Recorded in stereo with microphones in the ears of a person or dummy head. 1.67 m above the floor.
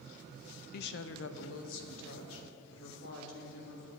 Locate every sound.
0.7 s a woman speaking: 50° left (ahead or behind), 0.5 m; by 3.9 s 80° left, 4 m